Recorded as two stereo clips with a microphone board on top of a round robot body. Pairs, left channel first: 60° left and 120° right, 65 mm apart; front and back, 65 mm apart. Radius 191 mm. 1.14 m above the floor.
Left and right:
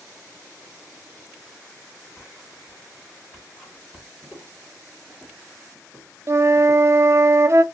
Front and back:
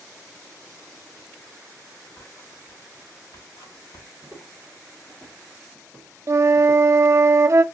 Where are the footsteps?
165° left, 1.1 m; by 6.9 s 35° right, 1.8 m.